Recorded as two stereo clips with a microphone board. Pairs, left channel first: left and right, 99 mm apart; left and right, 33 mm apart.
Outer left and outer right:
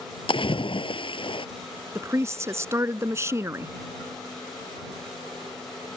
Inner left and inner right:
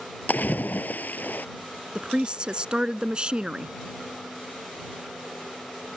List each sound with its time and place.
0.3 s a splash: 55° left (ahead or behind)
1.9 s a woman speaking: 25° right (ahead or behind)